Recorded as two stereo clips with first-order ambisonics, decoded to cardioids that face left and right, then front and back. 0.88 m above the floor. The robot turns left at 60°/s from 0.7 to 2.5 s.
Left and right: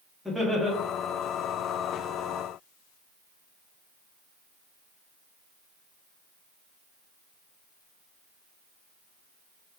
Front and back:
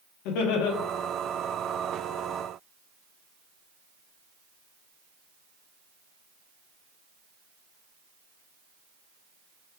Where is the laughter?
Straight ahead, 1.4 m.